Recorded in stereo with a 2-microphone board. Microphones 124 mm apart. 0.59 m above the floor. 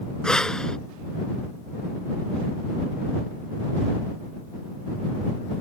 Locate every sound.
0.2 s breathing: 5° left (ahead or behind)